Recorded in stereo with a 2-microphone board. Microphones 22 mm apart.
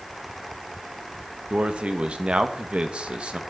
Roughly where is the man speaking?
Right.